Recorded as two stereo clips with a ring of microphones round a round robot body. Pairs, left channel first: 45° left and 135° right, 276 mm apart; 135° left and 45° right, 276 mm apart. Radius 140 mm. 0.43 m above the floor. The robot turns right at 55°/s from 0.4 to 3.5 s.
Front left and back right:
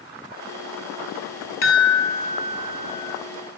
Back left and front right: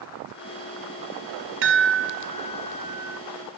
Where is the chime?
Straight ahead, 2.0 m; by 3.2 s 90° left, 2.0 m.